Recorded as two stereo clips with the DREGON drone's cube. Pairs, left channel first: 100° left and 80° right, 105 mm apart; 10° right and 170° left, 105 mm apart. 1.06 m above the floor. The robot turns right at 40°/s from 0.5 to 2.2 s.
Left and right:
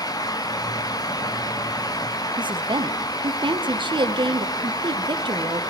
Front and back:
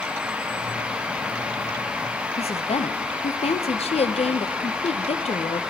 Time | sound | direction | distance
2.4 | a woman speaking | 35° right | 0.7 m